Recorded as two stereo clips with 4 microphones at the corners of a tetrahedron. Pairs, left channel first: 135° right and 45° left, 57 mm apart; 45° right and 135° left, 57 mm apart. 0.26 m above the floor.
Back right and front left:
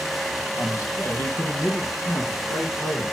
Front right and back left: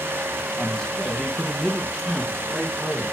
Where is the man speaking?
125° right, 1.6 m; by 3.0 s 140° right, 3 m.